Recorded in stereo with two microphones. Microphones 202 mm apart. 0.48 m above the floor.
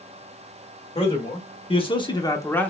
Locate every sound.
0.9 s a man speaking: 30° left (ahead or behind), 1.2 m; by 2.7 s 5° left (ahead or behind), 0.8 m